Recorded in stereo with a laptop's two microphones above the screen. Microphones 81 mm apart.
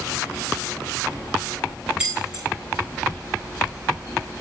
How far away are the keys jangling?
About 5.5 m.